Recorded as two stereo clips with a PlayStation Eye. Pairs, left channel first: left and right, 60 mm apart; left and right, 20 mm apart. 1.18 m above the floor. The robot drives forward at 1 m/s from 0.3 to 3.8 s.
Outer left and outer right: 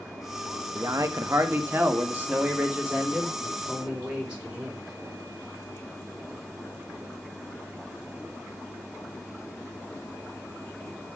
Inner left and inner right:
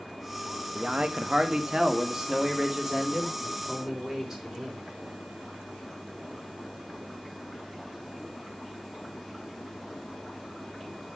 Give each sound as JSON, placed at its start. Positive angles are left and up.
{"t": 0.8, "sound": "a man speaking", "side_deg": -70, "distance_m": 1.2}